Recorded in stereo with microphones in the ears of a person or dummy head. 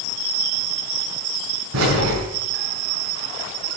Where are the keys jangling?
85° right, 8 m.